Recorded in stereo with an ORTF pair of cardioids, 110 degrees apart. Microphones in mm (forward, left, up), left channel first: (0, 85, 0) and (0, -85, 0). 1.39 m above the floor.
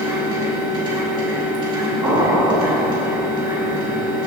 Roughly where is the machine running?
Ahead right.